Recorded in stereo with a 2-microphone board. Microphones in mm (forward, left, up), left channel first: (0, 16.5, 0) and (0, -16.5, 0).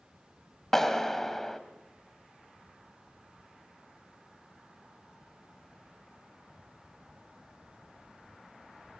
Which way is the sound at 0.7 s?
10° left (ahead or behind).